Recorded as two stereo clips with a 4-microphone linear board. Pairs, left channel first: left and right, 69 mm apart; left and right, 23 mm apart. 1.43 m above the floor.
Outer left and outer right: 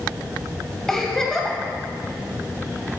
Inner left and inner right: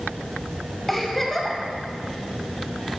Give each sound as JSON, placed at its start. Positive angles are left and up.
{"t": 0.9, "sound": "a giggle", "side_deg": 5, "distance_m": 1.8}